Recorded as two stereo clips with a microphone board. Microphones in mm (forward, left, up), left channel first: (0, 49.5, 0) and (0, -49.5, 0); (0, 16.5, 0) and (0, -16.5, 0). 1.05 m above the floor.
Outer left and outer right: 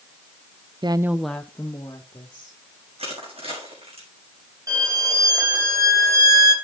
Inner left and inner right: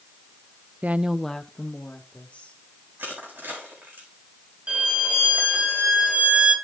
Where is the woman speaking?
50° right (ahead or behind), 0.5 m; by 2.6 s 30° left (ahead or behind), 2.5 m.